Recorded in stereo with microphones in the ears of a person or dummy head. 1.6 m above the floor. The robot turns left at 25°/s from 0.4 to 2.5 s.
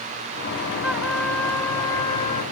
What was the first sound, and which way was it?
A trumpet, 170° right.